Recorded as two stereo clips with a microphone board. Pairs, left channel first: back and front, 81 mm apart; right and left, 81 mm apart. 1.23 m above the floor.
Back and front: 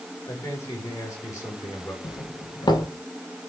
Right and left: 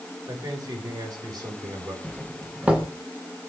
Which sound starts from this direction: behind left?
A man speaking, at 0.3 s.